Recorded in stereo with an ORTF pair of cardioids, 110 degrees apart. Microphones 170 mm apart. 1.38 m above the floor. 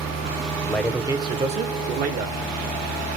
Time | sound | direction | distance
0.7 | a man speaking | 15° left | 0.6 m